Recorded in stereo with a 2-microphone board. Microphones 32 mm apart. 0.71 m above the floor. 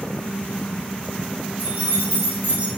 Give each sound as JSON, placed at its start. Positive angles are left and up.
{"t": 1.6, "sound": "keys jangling", "side_deg": -65, "distance_m": 2.5}